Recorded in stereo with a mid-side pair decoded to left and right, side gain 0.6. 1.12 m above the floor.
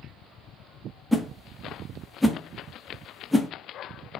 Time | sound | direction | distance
1.1 | a whoosh | straight ahead | 0.7 m